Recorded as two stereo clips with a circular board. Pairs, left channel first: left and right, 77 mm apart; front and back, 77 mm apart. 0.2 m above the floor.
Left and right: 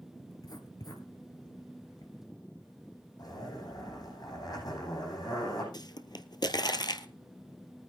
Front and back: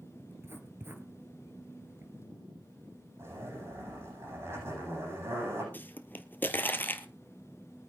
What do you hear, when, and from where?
0.3 s writing: 120° left, 1.6 m
3.2 s a zipper: 125° left, 9 m
5.7 s a pop: 65° left, 1.0 m